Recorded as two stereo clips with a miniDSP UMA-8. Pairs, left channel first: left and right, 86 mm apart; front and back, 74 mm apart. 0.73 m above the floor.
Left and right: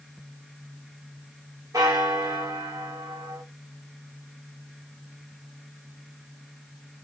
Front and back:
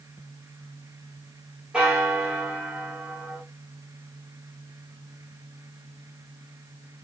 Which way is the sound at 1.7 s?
110° right.